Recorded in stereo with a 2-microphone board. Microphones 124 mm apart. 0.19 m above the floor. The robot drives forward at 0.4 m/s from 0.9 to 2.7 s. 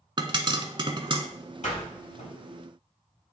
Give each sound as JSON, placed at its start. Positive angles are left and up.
{"t": 0.2, "sound": "a pop", "side_deg": -40, "distance_m": 0.7}
{"t": 1.6, "sound": "a door slam", "side_deg": 70, "distance_m": 4.0}